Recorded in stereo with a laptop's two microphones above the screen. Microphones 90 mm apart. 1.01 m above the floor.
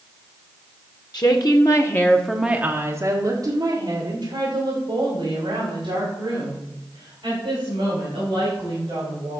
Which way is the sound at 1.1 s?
50° left (ahead or behind).